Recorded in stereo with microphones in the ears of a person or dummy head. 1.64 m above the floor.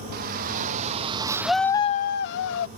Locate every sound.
0.1 s a shout: 55° right (ahead or behind); by 2.7 s 75° left (ahead or behind)